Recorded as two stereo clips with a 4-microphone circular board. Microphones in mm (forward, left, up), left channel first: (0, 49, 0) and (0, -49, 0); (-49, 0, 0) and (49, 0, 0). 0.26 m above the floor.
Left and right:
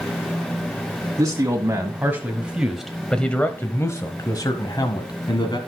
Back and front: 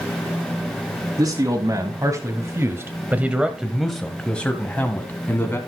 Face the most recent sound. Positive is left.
turn(degrees=115)